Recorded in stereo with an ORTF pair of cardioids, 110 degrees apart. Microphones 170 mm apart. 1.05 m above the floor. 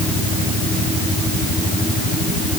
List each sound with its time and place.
Only background noise.